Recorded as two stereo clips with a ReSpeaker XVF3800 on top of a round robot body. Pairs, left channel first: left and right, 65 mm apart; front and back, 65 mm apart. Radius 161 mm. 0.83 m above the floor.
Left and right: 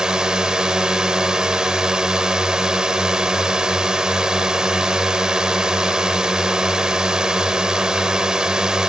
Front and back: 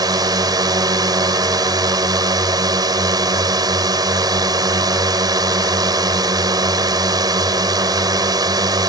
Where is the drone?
170° right.